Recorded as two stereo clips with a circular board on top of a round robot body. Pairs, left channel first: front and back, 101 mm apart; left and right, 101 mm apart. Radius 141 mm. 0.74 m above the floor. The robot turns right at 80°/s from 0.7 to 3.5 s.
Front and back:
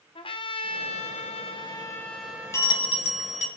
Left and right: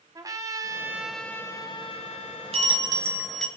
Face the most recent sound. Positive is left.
turn(degrees=10)